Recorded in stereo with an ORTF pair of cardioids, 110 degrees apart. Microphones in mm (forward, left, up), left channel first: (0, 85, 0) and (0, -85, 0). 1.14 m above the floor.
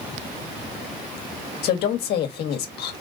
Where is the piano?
I don't hear a piano.